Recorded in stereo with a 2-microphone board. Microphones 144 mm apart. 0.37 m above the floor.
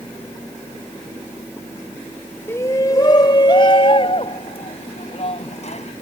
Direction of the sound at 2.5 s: 20° left (ahead or behind).